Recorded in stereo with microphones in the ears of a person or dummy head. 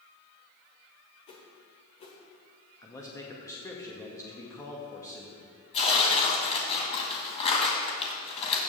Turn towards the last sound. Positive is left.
turn(degrees=40)  # may be behind; listen again after turning